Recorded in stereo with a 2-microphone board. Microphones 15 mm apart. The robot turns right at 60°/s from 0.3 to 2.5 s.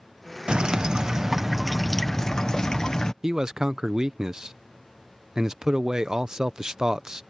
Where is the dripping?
85° right; by 3.1 s 35° left.